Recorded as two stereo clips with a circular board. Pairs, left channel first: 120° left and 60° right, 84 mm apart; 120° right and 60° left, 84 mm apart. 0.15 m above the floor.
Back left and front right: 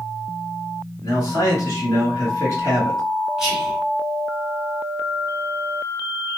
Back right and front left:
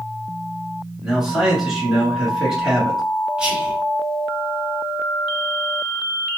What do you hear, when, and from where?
1.0 s a man speaking: 135° left, 1.6 m
3.4 s whispering: 10° left, 1.0 m